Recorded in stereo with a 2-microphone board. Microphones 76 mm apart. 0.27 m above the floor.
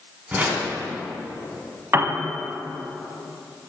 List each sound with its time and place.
0.3 s a whoosh: 20° right (ahead or behind), 1.8 m
1.9 s a piano: 35° right (ahead or behind), 0.7 m